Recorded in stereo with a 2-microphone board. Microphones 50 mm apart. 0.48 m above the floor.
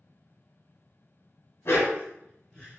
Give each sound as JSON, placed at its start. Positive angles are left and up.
{"t": 1.6, "sound": "a dog barking", "side_deg": 55, "distance_m": 0.9}